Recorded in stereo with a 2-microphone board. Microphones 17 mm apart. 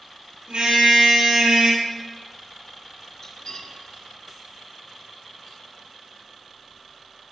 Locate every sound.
0.5 s a car horn: 70° right (ahead or behind), 6.5 m; by 1.8 s 65° right (ahead or behind), 5 m
3.2 s cutlery clinking: 50° left (ahead or behind), 4.5 m